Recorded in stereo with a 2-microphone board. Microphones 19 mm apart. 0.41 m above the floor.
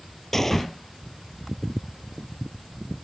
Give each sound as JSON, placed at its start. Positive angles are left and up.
{"t": 0.3, "sound": "a gunshot", "side_deg": 20}